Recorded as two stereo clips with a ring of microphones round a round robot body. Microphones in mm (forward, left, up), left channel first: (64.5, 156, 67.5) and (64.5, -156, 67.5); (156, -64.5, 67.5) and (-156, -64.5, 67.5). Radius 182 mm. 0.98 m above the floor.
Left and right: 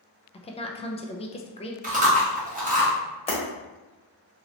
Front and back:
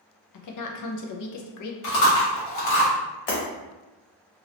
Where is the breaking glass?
20° left, 1.4 m.